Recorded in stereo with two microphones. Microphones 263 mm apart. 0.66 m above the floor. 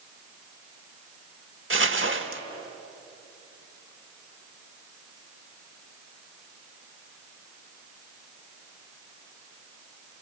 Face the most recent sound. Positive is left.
turn(degrees=-50)  # may be behind; listen again after turning